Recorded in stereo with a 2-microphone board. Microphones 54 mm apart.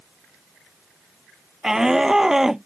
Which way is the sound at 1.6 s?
10° right (ahead or behind).